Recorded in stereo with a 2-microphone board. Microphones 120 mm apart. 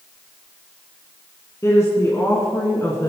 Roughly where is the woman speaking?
Left.